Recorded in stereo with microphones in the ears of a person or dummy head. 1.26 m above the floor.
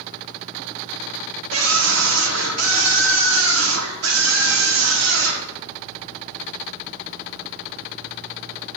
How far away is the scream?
About 2.5 m.